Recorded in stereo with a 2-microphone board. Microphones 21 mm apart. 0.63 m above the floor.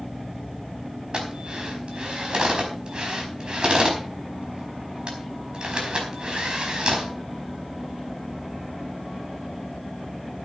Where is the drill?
45° right (ahead or behind), 4.5 m.